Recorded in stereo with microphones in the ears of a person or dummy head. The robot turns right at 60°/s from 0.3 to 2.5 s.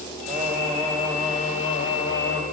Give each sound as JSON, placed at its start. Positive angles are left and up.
{"t": 0.3, "sound": "singing", "azimuth_deg": -35, "distance_m": 1.7}